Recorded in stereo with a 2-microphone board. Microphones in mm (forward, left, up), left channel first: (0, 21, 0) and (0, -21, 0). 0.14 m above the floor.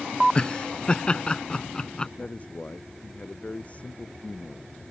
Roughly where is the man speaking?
Left.